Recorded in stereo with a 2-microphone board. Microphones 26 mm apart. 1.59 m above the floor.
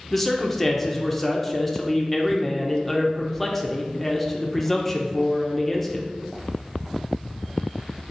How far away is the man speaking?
About 0.6 m.